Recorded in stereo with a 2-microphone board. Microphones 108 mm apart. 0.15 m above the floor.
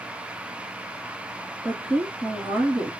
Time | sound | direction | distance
1.6 | a woman speaking | 15° right (ahead or behind) | 1.4 m